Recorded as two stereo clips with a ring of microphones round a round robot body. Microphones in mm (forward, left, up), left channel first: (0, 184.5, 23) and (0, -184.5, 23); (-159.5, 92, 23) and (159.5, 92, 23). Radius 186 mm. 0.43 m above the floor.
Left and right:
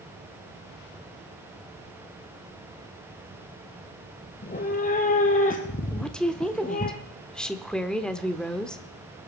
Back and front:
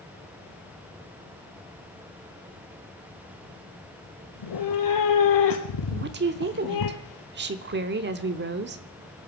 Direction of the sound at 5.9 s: 5° left.